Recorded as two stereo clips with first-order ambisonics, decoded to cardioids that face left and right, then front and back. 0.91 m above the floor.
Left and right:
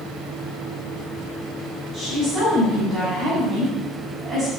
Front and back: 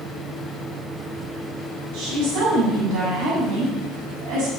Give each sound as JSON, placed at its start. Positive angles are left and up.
{"t": 1.9, "sound": "a woman speaking", "azimuth_deg": -165, "distance_m": 6.5}